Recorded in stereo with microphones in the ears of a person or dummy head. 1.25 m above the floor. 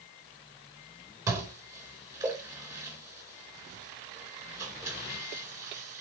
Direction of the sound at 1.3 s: 15° right (ahead or behind).